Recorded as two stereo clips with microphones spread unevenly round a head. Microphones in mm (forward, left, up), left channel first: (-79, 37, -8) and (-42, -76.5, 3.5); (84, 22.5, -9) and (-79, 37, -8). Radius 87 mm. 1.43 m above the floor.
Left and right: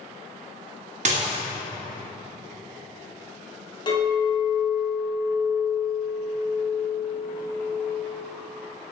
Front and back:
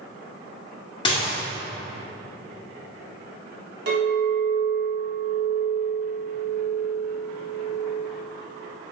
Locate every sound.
1.1 s dishes clattering: 70° right, 1.4 m
3.9 s a clink: 160° left, 2.5 m